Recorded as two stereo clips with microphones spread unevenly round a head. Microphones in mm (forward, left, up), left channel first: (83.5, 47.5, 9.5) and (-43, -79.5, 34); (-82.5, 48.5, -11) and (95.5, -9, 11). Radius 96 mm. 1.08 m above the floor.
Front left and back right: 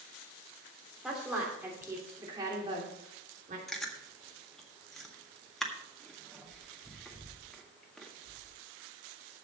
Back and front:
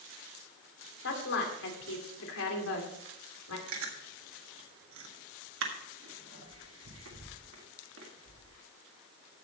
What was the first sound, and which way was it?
A woman speaking, 140° left.